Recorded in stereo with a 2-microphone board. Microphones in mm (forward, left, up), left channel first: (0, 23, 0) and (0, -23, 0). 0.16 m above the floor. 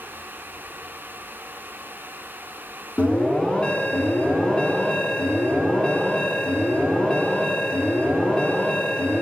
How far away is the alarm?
About 1.3 m.